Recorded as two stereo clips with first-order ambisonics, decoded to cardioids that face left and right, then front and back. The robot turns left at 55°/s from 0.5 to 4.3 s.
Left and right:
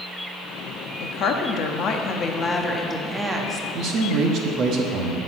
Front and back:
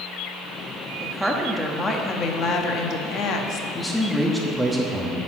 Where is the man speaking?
70° right, 0.9 m; by 5.2 s 100° right, 0.9 m.